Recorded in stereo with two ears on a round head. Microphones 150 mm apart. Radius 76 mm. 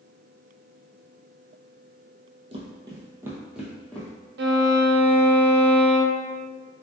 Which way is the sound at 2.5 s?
35° right (ahead or behind).